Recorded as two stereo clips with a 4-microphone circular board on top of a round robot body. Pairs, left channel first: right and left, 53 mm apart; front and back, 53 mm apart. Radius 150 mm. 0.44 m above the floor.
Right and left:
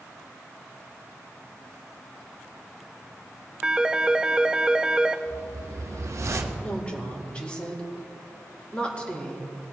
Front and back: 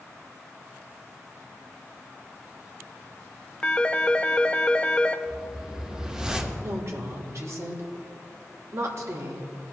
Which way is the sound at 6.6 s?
160° right.